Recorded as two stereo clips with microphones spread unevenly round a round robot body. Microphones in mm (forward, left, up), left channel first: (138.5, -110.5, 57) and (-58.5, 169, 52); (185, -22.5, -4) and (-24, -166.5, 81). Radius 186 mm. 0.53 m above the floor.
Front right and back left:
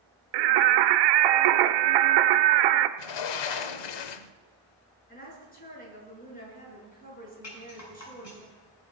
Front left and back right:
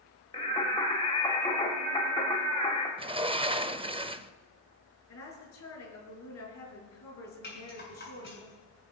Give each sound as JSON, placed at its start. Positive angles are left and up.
{"t": 0.3, "sound": "singing", "azimuth_deg": 115, "distance_m": 0.8}
{"t": 3.0, "sound": "a sliding door", "azimuth_deg": -75, "distance_m": 0.8}
{"t": 5.1, "sound": "a woman speaking", "azimuth_deg": 10, "distance_m": 6.5}
{"t": 7.4, "sound": "a rattle", "azimuth_deg": -10, "distance_m": 7.0}